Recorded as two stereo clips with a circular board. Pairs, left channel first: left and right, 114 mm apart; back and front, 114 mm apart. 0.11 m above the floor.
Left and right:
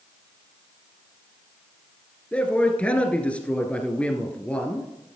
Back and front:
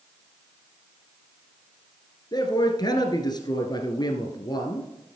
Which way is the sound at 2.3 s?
165° left.